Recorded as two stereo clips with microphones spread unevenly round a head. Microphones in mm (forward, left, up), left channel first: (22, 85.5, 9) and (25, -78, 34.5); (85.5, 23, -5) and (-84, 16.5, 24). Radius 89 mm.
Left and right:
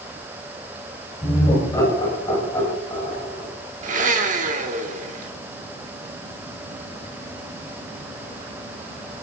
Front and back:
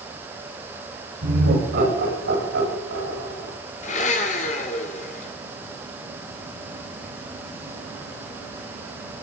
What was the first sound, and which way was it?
Laughter, 160° left.